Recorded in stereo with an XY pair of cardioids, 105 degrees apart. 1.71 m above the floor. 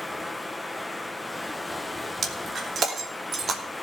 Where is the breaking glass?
50° right, 2.5 m.